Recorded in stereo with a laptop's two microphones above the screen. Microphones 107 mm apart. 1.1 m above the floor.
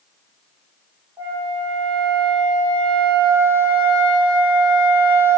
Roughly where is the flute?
Right.